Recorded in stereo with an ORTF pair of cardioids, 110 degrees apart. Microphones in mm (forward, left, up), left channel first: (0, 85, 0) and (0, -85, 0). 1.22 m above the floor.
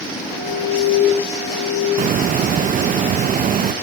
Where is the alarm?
55° right, 8 m.